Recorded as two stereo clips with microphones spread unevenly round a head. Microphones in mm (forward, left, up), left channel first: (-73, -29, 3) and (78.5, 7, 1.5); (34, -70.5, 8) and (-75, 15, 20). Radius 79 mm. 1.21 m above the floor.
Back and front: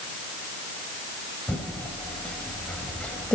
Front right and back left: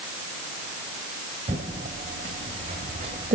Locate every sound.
1.5 s typing on a keyboard: 110° left, 1.5 m